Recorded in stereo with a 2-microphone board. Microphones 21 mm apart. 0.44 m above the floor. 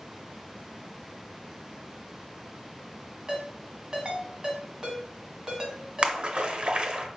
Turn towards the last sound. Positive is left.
turn(degrees=-45)  # may be behind; listen again after turning